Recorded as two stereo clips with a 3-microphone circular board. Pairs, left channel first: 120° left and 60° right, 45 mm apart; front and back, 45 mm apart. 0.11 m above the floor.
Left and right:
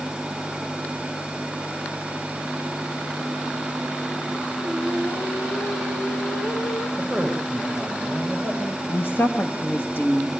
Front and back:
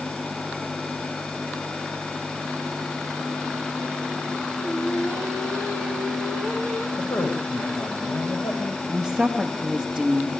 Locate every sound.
4.6 s singing: 50° left, 5 m
7.0 s a man speaking: 20° left, 8.5 m
8.9 s a woman speaking: 100° left, 2.5 m